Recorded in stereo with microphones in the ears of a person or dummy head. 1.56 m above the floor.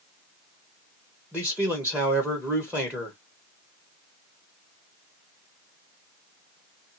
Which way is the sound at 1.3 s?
10° right (ahead or behind).